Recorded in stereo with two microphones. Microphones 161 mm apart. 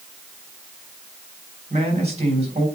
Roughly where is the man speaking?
Right.